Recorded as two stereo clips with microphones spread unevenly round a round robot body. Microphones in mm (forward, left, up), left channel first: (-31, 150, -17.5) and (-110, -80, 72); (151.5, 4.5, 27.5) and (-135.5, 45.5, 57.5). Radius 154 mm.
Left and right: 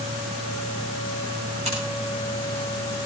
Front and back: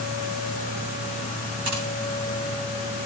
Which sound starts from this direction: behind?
Scissors, at 1.6 s.